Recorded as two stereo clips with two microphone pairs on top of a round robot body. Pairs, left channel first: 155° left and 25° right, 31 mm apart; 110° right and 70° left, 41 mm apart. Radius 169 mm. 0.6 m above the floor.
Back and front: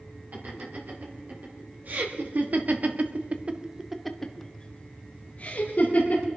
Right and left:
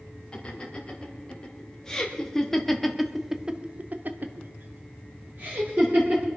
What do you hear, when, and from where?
0.3 s laughter: 45° right, 5 m; by 6.3 s 115° left, 3.5 m